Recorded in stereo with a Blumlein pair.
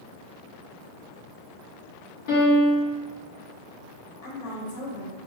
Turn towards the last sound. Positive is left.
turn(degrees=50)